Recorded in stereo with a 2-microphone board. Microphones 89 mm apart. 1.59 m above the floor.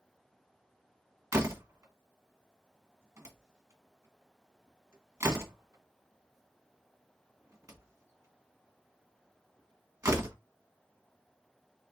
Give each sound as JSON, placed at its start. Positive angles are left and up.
{"t": 1.3, "sound": "a door slam", "side_deg": -30, "distance_m": 1.4}